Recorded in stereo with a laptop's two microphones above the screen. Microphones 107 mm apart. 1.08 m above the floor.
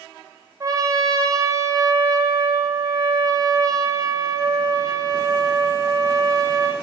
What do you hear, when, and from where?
0.6 s a trumpet: 30° right (ahead or behind), 0.7 m